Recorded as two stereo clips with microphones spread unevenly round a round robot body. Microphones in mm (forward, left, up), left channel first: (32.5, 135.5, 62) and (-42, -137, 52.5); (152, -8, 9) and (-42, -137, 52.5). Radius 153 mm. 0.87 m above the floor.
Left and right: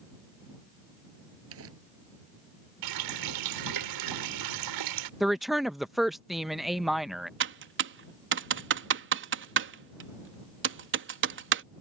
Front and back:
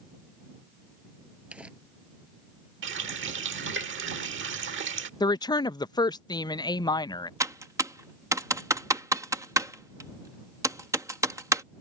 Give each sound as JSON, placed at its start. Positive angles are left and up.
{"t": 1.5, "sound": "crumpling", "azimuth_deg": -60}
{"t": 2.8, "sound": "a running tap", "azimuth_deg": -110}
{"t": 5.2, "sound": "a woman speaking", "azimuth_deg": -20}
{"t": 7.4, "sound": "typing on a keyboard", "azimuth_deg": -65}